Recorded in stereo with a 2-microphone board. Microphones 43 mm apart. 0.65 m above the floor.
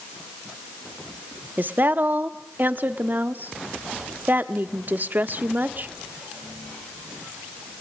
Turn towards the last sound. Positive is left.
turn(degrees=-40)  # may be behind; listen again after turning